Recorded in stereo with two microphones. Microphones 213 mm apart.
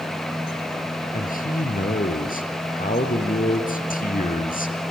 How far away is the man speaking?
About 2 m.